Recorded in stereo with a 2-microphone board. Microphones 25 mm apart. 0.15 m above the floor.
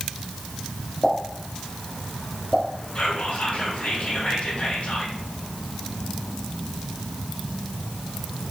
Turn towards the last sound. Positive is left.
turn(degrees=55)  # may be behind; listen again after turning